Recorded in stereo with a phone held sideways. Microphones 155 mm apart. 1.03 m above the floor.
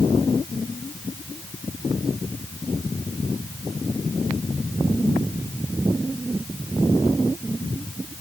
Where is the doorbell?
I don't hear a doorbell.